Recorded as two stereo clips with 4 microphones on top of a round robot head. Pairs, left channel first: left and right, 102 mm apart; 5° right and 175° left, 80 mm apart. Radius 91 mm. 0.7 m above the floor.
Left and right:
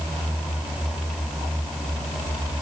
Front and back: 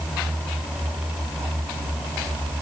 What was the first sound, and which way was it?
Only background noise.